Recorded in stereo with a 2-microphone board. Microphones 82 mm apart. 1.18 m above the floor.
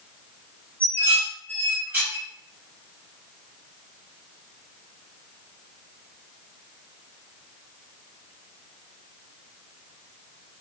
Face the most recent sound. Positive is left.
turn(degrees=-25)  # may be behind; listen again after turning